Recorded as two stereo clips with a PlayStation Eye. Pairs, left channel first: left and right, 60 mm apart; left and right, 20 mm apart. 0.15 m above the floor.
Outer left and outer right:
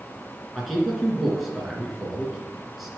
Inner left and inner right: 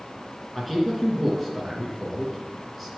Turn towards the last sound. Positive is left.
turn(degrees=0)  # may be behind; listen again after turning